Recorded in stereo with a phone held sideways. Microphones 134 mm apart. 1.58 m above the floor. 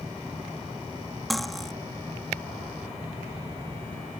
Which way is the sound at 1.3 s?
Centre (ahead or behind).